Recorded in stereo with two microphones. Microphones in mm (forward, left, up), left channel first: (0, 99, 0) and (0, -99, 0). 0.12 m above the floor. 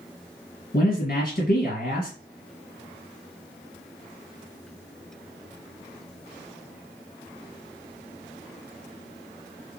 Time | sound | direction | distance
0.7 | a man speaking | 50° left (ahead or behind) | 2.5 m